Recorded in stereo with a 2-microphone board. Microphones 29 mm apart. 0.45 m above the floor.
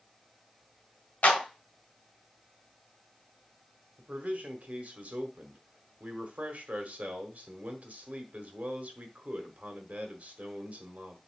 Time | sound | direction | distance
1.2 | a clap | 65° left (ahead or behind) | 2 m
4.0 | a man speaking | 60° right (ahead or behind) | 1.4 m